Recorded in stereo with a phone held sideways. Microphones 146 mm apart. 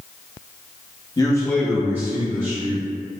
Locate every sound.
1.2 s a man speaking: 25° left (ahead or behind), 0.9 m; by 2.9 s 50° right (ahead or behind), 1.1 m